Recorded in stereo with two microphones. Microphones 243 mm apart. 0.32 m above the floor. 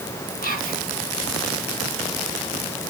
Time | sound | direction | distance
0.4 | whispering | 35° left (ahead or behind) | 3 m